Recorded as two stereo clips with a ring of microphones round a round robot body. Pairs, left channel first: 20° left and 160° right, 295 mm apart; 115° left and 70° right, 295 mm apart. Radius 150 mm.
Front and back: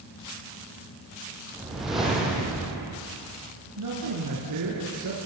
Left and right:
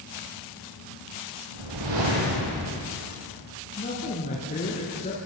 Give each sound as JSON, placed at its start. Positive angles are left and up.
{"t": 1.5, "sound": "a whoosh", "azimuth_deg": -70, "distance_m": 8.0}
{"t": 3.8, "sound": "a man speaking", "azimuth_deg": 180, "distance_m": 4.5}